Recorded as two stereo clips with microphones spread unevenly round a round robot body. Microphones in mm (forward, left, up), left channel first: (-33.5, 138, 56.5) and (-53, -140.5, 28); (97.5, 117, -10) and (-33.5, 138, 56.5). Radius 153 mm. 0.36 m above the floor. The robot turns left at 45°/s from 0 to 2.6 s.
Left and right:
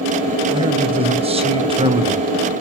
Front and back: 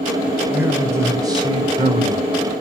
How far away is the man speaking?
About 1.0 m.